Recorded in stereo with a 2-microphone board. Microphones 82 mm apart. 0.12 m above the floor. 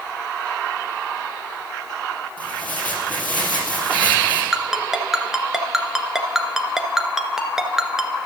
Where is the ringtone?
5° right (ahead or behind), 1.1 m.